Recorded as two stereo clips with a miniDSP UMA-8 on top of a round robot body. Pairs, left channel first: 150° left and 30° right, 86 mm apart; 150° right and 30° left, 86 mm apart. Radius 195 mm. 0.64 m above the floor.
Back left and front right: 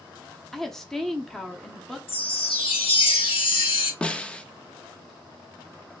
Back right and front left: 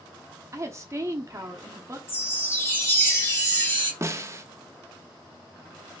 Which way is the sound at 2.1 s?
145° left.